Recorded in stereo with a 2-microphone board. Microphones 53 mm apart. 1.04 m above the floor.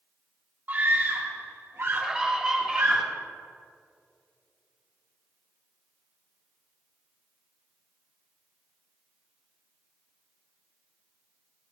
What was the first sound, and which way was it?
A scream, 35° right (ahead or behind).